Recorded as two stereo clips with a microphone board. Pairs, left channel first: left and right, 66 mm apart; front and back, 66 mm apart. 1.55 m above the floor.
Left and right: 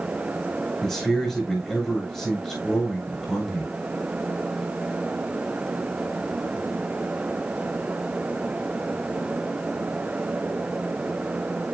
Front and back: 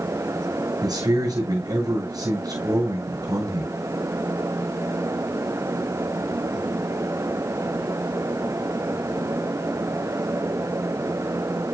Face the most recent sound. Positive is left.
turn(degrees=170)